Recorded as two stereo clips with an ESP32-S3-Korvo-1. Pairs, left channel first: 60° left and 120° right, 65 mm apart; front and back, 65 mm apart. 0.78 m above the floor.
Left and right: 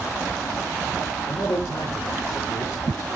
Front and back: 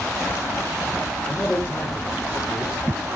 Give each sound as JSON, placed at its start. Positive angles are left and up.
{"t": 1.3, "sound": "a man speaking", "azimuth_deg": 65, "distance_m": 2.5}